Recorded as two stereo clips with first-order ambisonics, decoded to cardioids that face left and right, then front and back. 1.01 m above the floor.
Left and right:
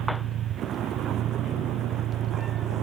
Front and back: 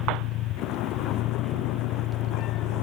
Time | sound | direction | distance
0.0 | a vehicle | 35° right | ?